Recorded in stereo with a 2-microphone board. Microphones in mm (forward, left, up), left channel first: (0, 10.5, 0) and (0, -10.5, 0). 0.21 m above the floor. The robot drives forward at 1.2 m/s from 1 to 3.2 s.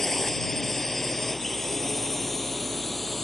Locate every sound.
0.0 s a drone: 20° left (ahead or behind); by 3.2 s 15° left (ahead or behind)